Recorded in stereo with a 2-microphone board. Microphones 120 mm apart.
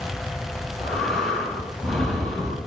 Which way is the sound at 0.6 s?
5° left (ahead or behind).